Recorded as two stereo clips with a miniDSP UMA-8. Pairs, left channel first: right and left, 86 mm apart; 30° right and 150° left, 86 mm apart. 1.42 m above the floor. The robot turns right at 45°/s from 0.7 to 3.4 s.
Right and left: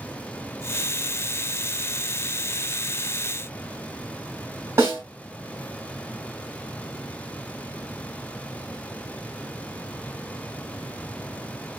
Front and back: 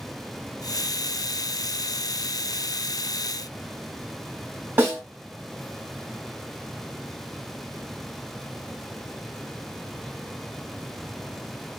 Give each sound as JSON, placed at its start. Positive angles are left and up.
{"t": 4.8, "sound": "a snare drum", "azimuth_deg": 105, "distance_m": 1.5}